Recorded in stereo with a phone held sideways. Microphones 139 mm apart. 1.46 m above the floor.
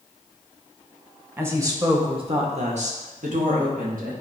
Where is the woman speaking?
15° right (ahead or behind), 1.7 m; by 4.1 s 80° right, 2 m.